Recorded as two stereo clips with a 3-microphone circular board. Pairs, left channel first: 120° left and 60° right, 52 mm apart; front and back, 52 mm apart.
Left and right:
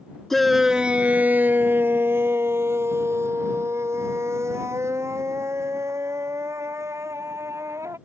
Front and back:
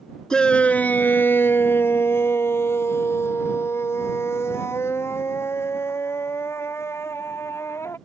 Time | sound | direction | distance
0.3 | a shout | 45° left | ?